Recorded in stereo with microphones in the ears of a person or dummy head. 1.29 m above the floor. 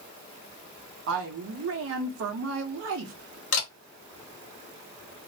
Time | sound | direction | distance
1.1 | a woman speaking | 75° right (ahead or behind) | 0.8 m
3.5 | a camera shutter | 65° left (ahead or behind) | 1.0 m